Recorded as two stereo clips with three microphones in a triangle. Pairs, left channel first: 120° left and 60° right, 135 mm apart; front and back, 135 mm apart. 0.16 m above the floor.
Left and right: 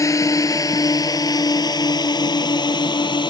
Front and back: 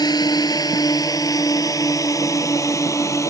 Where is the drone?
55° left; by 3.3 s 65° left.